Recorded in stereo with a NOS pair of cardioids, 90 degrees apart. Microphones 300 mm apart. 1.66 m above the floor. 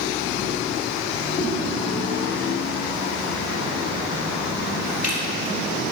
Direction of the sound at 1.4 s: 25° left.